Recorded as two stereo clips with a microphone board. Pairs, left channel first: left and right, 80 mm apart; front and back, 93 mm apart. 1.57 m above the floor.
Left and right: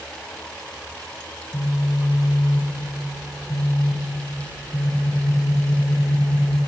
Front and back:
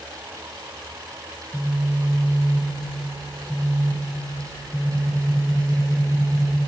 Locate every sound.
1.5 s a phone buzzing: 60° left, 3.5 m